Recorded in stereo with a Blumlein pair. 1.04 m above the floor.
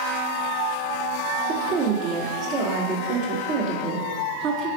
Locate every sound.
1.5 s a woman speaking: 40° right, 2.5 m